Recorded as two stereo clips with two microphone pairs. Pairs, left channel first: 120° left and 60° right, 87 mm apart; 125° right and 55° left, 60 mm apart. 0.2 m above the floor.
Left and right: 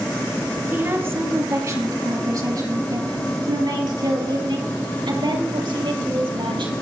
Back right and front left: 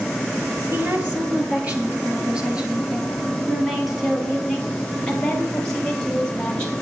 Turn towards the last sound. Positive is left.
turn(degrees=-55)